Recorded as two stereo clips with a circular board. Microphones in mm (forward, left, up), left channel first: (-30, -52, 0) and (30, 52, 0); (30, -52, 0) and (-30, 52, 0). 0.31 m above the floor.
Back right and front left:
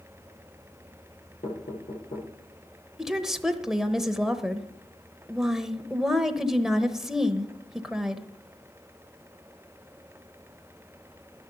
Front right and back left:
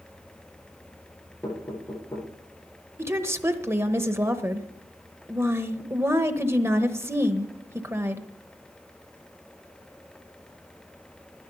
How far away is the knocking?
About 8.5 m.